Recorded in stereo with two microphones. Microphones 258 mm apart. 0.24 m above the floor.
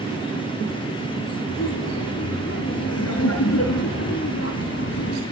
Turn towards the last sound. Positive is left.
turn(degrees=50)  # may be behind; listen again after turning